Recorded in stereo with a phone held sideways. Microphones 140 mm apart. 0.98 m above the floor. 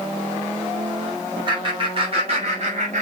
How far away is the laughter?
About 4 m.